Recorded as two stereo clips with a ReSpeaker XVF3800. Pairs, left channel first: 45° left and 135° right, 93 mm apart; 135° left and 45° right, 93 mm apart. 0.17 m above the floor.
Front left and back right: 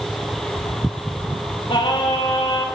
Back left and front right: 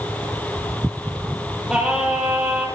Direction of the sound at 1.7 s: 35° left.